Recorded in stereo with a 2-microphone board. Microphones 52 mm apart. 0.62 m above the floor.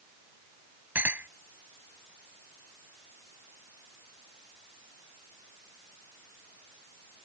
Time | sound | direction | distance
0.9 | a clink | 40° right (ahead or behind) | ?